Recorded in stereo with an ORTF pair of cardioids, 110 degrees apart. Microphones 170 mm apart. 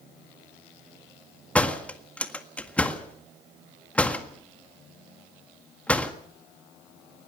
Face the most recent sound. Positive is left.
turn(degrees=5)